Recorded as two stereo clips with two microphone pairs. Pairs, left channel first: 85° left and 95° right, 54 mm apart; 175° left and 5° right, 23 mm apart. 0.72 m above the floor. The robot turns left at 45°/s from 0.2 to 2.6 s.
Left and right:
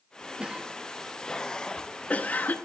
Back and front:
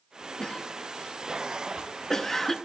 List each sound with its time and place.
0.4 s a cough: 155° right, 0.6 m; by 2.6 s 110° left, 0.6 m